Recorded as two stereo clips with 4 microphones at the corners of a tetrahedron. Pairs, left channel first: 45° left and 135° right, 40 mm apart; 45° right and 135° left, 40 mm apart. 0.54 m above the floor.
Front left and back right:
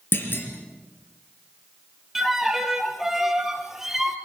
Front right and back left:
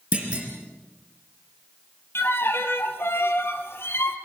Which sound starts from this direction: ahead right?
A violin, at 2.1 s.